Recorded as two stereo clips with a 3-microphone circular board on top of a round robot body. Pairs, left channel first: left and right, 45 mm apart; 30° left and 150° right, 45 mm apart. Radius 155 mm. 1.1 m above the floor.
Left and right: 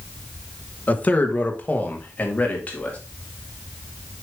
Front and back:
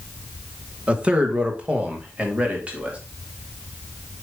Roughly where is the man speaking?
Behind left.